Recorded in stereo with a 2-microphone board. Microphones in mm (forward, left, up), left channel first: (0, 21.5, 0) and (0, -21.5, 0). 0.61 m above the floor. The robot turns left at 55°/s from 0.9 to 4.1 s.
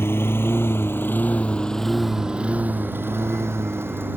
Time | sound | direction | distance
0.0 | a lawn mower | 70° left (ahead or behind) | ?